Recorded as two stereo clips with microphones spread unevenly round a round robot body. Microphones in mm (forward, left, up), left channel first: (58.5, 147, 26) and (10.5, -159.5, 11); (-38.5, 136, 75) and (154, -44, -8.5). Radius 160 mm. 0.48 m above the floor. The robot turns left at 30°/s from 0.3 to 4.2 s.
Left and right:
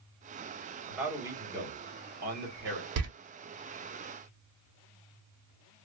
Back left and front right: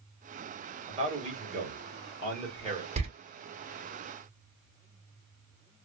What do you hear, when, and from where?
0.9 s a man speaking: 15° right, 1.4 m; by 2.9 s 75° right, 1.4 m
3.0 s a door slam: 80° right, 0.7 m; by 3.1 s 85° right, 0.7 m